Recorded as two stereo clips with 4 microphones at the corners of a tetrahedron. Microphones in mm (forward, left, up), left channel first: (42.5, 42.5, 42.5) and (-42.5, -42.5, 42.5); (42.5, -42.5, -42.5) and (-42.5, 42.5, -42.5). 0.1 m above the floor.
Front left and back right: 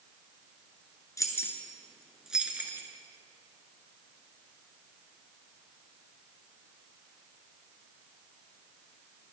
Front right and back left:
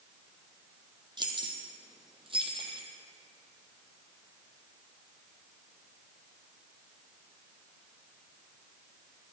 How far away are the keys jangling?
About 1.4 m.